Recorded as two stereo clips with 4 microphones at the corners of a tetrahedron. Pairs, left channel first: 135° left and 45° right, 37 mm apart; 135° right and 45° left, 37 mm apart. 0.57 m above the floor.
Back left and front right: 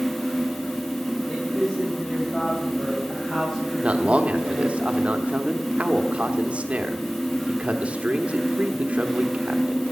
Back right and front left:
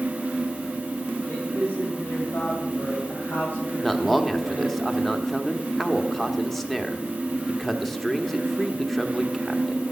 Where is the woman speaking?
150° right, 2.5 m; by 4.8 s 140° right, 4.5 m.